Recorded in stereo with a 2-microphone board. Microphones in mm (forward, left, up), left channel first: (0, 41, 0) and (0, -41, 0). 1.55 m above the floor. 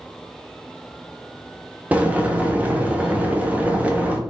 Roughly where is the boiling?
Centre.